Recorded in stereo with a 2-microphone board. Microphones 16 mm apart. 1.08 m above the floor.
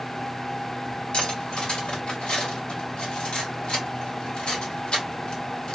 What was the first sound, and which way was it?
Cutlery clinking, 70° left (ahead or behind).